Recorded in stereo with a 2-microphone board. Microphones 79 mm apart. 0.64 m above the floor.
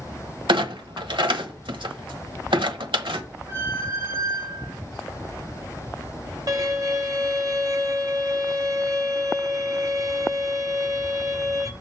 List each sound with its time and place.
0.5 s a clunk: 85° right, 1.1 m
3.5 s a squeak: 40° right (ahead or behind), 2 m
6.5 s a violin: 45° right (ahead or behind), 1.1 m